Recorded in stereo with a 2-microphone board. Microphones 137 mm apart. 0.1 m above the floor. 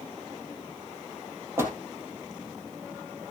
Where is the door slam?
15° right (ahead or behind), 2.5 m.